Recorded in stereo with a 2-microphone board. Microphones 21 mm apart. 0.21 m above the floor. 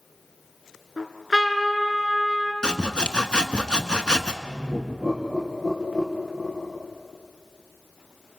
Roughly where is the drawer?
I don't hear a drawer.